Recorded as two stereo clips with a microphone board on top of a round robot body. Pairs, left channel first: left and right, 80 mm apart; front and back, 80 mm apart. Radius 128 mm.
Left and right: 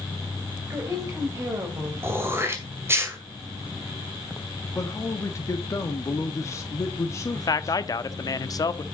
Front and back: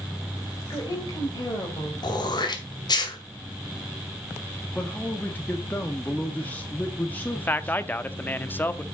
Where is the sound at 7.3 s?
60° left, 1.0 m.